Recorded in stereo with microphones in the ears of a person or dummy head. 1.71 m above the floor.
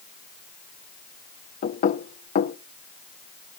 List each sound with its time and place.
1.6 s knocking: 45° left (ahead or behind), 0.5 m